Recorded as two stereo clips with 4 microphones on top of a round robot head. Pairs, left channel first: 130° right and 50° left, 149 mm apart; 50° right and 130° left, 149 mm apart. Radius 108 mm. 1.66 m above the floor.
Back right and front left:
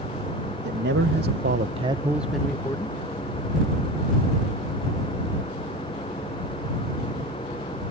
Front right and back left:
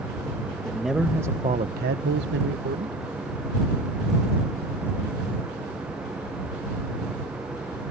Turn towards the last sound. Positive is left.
turn(degrees=160)